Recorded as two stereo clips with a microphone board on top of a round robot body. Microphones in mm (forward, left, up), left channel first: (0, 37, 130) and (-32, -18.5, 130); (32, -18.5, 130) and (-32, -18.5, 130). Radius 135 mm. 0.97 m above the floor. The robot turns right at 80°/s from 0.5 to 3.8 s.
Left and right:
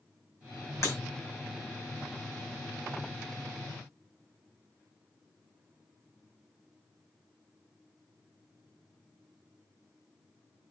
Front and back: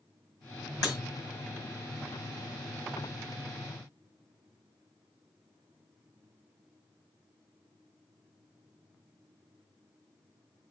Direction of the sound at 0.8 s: 15° left.